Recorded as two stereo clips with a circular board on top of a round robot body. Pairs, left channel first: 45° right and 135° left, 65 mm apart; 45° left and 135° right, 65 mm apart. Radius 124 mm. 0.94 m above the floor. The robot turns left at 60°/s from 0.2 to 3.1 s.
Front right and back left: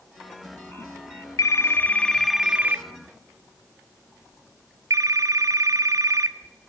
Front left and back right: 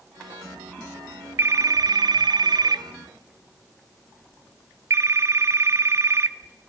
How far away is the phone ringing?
About 0.8 m.